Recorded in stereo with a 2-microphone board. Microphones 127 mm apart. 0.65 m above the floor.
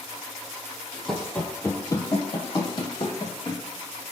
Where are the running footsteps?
5° left (ahead or behind), 0.8 m; by 3.6 s 35° left (ahead or behind), 1.4 m.